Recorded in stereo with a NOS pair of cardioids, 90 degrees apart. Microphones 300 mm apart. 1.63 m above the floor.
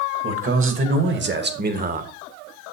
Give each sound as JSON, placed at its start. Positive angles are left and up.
{"t": 0.2, "sound": "a man speaking", "azimuth_deg": -45, "distance_m": 3.0}